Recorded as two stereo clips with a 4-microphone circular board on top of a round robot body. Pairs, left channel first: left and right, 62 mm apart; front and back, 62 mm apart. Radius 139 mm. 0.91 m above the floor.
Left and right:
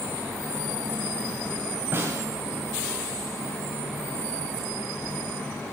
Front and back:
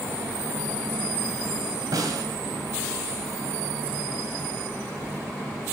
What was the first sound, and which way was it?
A snare drum, 150° right.